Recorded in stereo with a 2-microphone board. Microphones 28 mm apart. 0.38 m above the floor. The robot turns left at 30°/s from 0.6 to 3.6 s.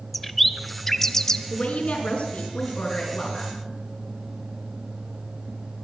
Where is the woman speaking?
125° left, 4.5 m; by 3.6 s 60° left, 4.5 m.